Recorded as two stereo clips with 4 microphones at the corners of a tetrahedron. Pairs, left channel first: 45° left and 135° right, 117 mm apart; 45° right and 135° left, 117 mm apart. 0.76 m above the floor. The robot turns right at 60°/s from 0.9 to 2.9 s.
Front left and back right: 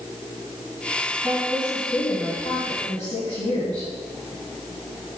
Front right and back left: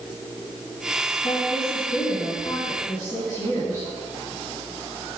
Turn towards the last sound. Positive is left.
turn(degrees=10)